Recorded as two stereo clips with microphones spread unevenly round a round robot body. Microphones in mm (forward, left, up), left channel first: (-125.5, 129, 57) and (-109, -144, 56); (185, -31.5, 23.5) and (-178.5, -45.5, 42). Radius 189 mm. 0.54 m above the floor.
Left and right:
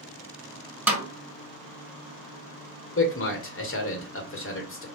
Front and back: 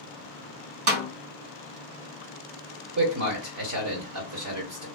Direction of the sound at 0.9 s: 170° right.